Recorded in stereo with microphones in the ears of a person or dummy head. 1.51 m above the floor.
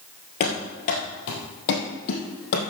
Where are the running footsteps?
45° left (ahead or behind), 2 m; by 2.6 s 60° left (ahead or behind), 3.5 m.